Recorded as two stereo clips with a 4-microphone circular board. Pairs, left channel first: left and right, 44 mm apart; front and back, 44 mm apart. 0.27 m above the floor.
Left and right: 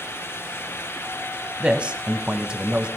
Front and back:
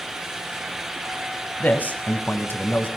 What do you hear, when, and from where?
1.6 s a man speaking: 30° right, 1.8 m